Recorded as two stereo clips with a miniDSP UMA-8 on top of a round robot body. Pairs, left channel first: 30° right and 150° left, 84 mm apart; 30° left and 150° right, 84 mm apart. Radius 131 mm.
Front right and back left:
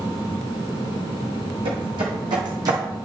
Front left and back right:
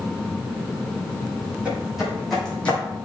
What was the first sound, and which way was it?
Footsteps, 135° left.